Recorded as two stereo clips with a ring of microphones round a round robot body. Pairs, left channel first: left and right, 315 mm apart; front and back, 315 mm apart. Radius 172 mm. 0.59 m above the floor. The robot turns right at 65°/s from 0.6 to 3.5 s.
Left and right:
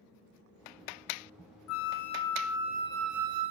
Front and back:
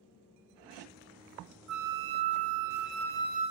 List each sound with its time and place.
1.7 s a flute: 135° left, 1.2 m; by 3.5 s 105° right, 1.2 m